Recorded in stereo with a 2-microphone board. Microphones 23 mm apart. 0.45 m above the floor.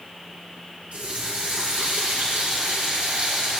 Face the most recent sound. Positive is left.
turn(degrees=-75)  # may be behind; listen again after turning